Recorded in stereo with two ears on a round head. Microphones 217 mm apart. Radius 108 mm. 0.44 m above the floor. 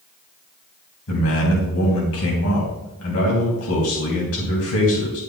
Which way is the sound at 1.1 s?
60° left (ahead or behind).